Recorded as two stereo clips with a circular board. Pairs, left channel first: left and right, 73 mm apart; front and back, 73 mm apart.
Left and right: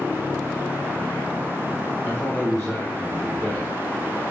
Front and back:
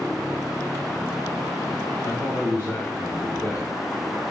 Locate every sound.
2.0 s a man speaking: 30° left, 0.9 m